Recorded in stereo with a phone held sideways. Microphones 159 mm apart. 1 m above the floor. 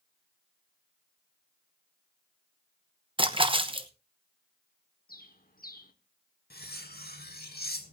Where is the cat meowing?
I don't hear a cat meowing.